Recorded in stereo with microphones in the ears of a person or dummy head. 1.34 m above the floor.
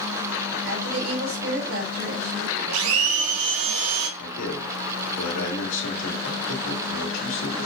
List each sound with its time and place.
0.6 s a woman speaking: 75° right (ahead or behind), 2.5 m
2.7 s a blender: 80° right, 1.0 m
4.2 s a man speaking: 70° left (ahead or behind), 2.5 m